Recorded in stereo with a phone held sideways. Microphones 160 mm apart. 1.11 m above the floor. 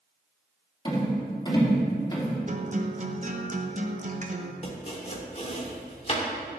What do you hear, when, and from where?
0.8 s a rattle: 25° left (ahead or behind), 3 m
2.5 s a guitar: 45° right (ahead or behind), 0.8 m
4.6 s chopping: 40° left (ahead or behind), 1.6 m